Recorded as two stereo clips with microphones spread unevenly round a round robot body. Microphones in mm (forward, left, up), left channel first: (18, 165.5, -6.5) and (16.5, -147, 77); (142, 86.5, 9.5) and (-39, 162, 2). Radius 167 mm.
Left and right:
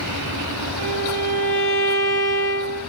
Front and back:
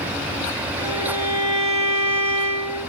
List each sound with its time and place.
0.8 s a violin: 35° right, 4.5 m